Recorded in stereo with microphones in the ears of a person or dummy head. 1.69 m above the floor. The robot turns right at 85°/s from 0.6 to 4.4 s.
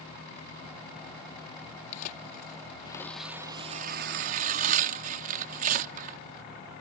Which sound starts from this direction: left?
Tearing paper, at 1.9 s.